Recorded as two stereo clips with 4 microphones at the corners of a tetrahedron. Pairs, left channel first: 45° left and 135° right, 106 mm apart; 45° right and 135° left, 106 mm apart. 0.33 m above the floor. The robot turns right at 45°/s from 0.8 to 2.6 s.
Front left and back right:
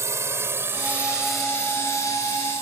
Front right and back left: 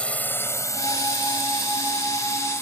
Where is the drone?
115° right; by 2.6 s 25° left.